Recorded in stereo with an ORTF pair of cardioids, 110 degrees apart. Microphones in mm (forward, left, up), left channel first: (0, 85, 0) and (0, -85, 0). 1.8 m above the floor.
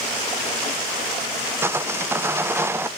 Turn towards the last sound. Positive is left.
turn(degrees=-15)